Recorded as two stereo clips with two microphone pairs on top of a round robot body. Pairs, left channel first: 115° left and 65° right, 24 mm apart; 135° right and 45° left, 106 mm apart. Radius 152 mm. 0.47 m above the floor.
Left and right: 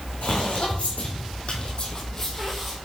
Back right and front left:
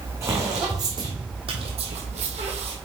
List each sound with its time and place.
0.2 s footsteps: 105° left, 3 m; by 2.8 s 20° left, 1.6 m